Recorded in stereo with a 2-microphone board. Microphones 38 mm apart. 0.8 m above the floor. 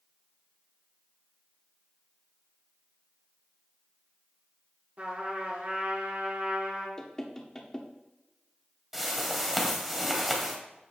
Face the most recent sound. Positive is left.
turn(degrees=-10)  # may be behind; listen again after turning